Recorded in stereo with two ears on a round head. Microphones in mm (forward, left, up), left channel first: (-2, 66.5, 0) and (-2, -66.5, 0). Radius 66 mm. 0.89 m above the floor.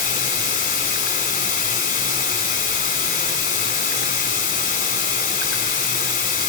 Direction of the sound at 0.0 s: 60° left (ahead or behind).